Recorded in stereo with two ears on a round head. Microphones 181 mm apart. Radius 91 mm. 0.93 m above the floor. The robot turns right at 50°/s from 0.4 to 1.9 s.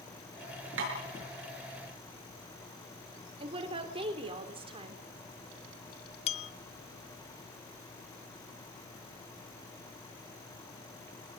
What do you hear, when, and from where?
0.8 s tapping: 65° right (ahead or behind), 7.5 m; by 0.9 s 60° right (ahead or behind), 7.5 m
3.4 s a woman speaking: 30° right (ahead or behind), 3.5 m
6.3 s a bell: 30° left (ahead or behind), 0.6 m